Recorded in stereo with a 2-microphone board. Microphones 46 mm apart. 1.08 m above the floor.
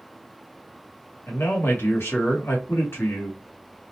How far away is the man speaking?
About 1.0 m.